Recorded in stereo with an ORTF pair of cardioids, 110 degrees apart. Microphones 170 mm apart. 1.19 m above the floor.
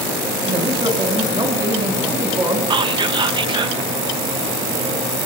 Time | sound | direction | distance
0.5 | a man speaking | 30° right | 6.5 m
2.7 | whispering | 30° right | 0.9 m